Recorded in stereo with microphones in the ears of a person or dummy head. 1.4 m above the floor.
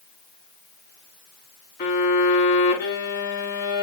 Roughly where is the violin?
Left.